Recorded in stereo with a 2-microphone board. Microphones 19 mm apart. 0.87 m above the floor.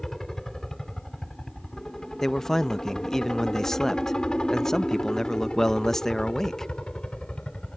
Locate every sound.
0.0 s a helicopter: 20° left (ahead or behind); by 7.8 s 65° left (ahead or behind)
2.2 s a man speaking: 25° left (ahead or behind)